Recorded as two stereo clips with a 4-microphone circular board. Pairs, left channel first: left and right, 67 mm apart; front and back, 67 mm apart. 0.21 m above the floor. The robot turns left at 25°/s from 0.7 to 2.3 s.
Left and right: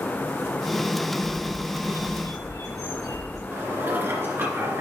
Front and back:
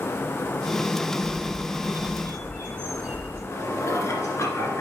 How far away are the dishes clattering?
About 1.9 m.